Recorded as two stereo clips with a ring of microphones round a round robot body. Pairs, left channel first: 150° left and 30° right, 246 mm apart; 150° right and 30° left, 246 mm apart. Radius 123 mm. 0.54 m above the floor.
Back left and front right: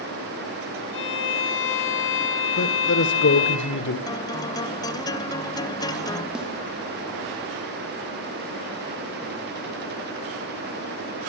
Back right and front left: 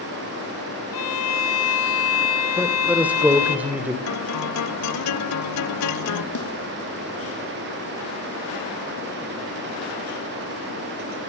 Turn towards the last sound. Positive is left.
turn(degrees=-115)